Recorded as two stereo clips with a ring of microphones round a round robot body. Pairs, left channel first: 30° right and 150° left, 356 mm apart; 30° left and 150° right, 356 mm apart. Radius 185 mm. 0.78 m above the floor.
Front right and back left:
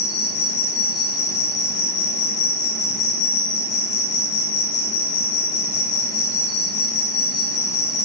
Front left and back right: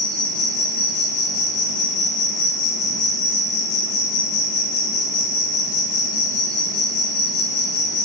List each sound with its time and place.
0.0 s an insect: 5° left, 2.5 m